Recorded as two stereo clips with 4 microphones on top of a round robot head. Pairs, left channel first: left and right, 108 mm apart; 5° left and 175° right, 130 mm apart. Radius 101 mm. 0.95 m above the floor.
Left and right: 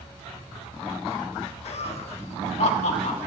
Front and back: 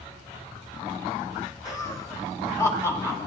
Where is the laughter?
70° left, 2 m; by 3.2 s 75° left, 3.5 m.